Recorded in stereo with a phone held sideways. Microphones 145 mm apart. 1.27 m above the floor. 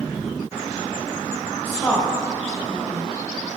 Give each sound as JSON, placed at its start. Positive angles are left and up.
{"t": 1.6, "sound": "a woman speaking", "side_deg": 20, "distance_m": 2.0}